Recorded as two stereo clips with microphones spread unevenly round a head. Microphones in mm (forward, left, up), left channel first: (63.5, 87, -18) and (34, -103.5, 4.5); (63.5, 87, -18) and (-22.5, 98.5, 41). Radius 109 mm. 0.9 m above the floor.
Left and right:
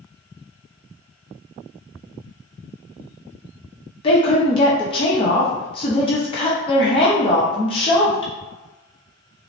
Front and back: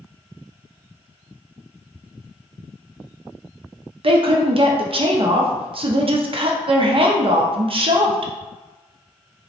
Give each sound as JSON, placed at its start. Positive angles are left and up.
{"t": 4.0, "sound": "a woman speaking", "azimuth_deg": 125, "distance_m": 0.6}